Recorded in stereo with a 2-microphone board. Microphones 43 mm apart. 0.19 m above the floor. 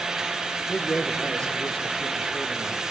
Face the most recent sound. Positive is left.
turn(degrees=20)  # may be behind; listen again after turning